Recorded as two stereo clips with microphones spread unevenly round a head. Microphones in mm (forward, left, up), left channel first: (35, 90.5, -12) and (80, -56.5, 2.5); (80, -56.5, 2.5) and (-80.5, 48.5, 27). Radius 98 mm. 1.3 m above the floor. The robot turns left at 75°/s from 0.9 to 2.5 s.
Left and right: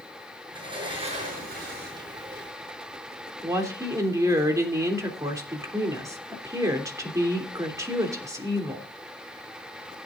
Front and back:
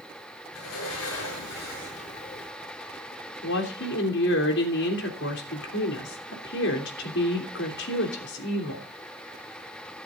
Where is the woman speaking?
5° right, 3 m.